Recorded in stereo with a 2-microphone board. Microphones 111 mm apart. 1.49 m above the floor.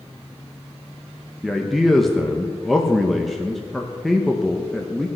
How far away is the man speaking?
About 1.1 m.